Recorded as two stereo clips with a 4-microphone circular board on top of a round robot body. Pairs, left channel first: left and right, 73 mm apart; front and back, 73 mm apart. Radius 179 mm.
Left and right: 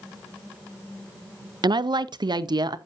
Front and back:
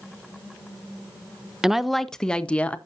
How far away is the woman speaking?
About 0.7 m.